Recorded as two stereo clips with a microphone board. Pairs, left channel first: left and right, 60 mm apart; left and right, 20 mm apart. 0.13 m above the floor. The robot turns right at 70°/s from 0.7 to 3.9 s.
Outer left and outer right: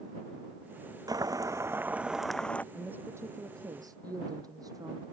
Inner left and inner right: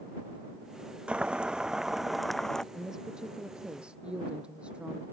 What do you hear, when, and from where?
1.1 s boiling: 85° right; by 2.6 s 25° left
2.7 s a woman speaking: 165° right; by 5.0 s 85° right